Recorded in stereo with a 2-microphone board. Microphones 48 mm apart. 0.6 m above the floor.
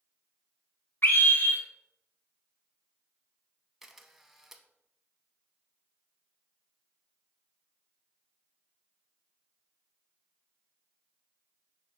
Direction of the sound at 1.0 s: 55° left (ahead or behind).